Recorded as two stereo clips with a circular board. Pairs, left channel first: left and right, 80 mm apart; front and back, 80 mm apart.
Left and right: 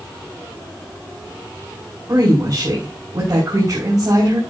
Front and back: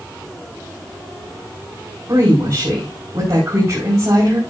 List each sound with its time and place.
2.1 s a woman speaking: 130° right, 5 m